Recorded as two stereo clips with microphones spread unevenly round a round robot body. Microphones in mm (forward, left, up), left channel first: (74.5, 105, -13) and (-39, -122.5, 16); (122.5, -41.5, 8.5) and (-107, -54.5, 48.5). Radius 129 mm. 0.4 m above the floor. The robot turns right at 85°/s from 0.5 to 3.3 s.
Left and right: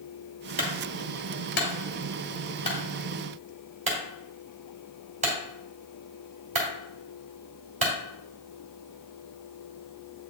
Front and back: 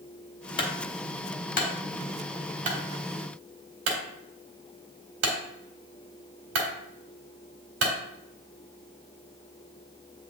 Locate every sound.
0.6 s a clunk: 50° right, 1.9 m; by 7.9 s straight behind, 1.9 m